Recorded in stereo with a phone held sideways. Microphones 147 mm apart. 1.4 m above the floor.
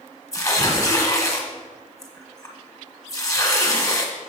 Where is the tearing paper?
25° left (ahead or behind), 1.5 m.